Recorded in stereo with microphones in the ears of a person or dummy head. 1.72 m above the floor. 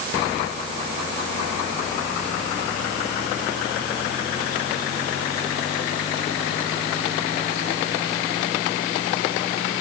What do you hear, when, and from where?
Only background noise.